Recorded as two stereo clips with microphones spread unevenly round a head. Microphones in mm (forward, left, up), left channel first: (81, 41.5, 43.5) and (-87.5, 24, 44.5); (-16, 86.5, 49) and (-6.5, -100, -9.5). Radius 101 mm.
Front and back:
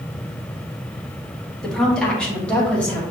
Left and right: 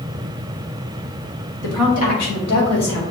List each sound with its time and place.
1.6 s a woman speaking: 90° left, 1.3 m